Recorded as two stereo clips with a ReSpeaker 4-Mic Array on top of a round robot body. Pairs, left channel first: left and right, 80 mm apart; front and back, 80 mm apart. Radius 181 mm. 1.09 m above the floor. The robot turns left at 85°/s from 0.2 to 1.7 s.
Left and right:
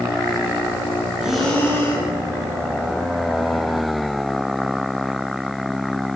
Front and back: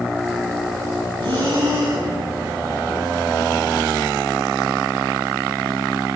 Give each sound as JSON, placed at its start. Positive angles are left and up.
{"t": 1.2, "sound": "breathing", "azimuth_deg": -165, "distance_m": 8.0}